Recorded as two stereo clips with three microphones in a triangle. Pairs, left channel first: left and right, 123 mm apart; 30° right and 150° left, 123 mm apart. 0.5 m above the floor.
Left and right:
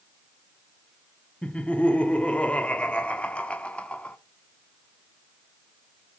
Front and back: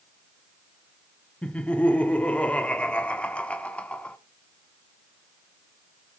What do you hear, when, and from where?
1.4 s laughter: 30° left, 0.7 m